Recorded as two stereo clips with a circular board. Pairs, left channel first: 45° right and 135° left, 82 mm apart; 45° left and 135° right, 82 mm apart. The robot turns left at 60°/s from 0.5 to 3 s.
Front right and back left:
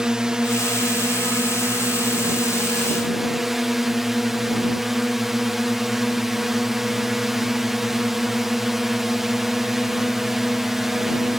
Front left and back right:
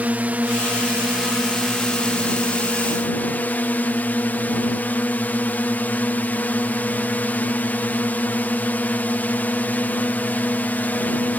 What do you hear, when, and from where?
0.0 s a drone: 160° right; by 11.4 s 50° left